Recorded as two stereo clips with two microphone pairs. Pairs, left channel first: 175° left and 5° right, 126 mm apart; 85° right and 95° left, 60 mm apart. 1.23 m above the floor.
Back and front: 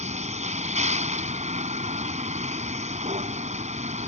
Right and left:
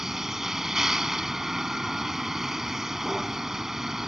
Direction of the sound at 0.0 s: 15° left.